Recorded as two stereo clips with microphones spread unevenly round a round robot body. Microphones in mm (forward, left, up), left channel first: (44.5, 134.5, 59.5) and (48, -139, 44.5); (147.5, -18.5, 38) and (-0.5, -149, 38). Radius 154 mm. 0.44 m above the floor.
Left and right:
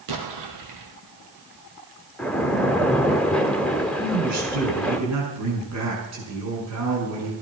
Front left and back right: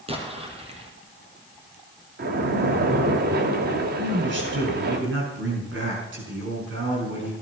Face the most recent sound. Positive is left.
turn(degrees=-120)